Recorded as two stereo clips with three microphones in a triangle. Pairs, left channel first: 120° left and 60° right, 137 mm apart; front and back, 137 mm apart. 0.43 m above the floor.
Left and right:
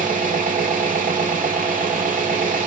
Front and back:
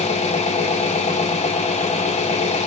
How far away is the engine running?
About 0.8 m.